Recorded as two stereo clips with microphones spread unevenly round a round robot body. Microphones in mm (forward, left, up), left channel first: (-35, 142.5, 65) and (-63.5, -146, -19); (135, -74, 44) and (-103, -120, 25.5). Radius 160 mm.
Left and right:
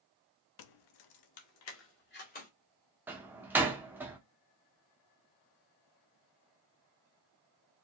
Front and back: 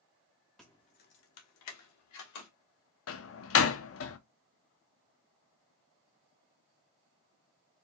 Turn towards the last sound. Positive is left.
turn(degrees=-20)